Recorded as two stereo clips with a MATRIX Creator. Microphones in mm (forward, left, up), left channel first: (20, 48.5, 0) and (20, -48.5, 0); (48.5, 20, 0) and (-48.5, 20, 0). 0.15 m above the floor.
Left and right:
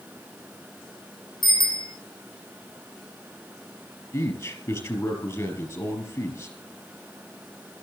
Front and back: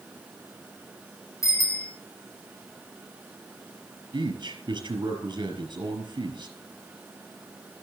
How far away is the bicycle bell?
About 6 m.